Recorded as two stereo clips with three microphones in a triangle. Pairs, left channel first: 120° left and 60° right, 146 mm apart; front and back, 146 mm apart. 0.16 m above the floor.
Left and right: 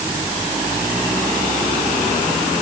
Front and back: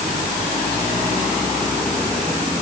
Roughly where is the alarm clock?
No alarm clock in this recording.